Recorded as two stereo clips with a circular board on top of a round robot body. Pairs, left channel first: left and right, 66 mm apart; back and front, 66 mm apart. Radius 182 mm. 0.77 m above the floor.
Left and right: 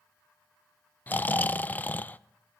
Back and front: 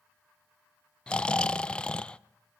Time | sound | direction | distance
1.1 | snoring | 120° left | 0.6 m